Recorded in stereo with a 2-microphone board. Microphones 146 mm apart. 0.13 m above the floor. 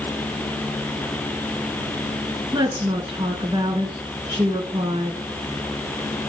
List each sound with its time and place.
2.5 s a woman speaking: 30° right (ahead or behind), 1.2 m